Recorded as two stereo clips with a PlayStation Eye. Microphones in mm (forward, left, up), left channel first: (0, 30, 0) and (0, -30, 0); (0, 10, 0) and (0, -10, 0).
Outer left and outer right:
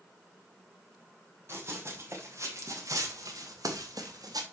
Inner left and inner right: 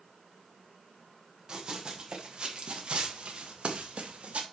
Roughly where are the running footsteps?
Right.